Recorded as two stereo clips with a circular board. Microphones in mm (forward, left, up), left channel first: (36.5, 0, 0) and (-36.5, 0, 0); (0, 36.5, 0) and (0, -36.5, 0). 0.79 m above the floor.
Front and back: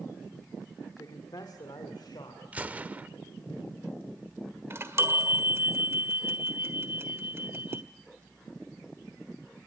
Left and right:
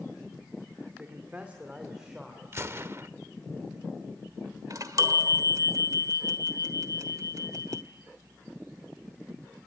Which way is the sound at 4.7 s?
125° right.